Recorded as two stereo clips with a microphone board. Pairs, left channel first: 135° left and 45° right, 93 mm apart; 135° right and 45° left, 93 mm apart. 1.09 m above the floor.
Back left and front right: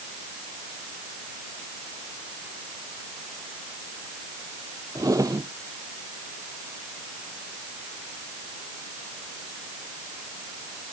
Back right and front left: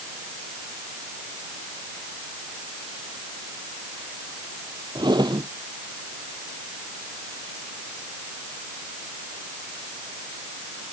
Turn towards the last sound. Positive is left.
turn(degrees=5)